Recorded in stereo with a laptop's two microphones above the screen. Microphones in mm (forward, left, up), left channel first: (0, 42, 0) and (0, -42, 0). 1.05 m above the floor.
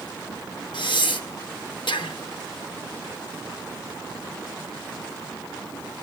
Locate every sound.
0.7 s breathing: 65° left (ahead or behind), 0.6 m